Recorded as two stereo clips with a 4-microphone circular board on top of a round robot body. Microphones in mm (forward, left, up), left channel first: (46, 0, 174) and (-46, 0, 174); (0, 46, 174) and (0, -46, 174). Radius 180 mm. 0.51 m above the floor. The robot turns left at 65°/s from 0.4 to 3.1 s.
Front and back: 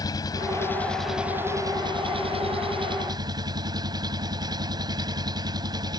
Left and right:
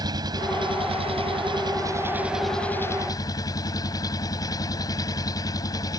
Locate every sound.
0.0 s an engine running: 45° right; by 6.0 s 140° left